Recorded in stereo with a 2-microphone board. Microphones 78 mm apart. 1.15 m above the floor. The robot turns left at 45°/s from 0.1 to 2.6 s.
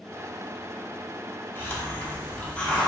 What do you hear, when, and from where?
1.6 s a hiss: 30° left (ahead or behind), 0.7 m; by 2.9 s 15° left (ahead or behind), 0.7 m